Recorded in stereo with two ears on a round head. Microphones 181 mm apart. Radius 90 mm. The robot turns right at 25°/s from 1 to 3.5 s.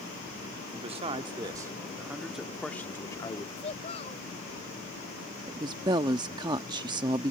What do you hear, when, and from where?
0.7 s a man speaking: 35° right; by 3.5 s 25° left
3.6 s a child speaking: 30° left (ahead or behind)
5.5 s a woman speaking: 20° right (ahead or behind)